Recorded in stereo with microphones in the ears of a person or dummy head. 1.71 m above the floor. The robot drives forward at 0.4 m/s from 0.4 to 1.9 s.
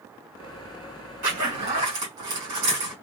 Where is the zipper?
65° right (ahead or behind), 3.5 m.